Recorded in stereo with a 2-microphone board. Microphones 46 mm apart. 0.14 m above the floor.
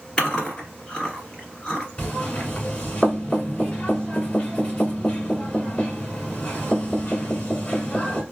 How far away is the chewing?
About 1.9 m.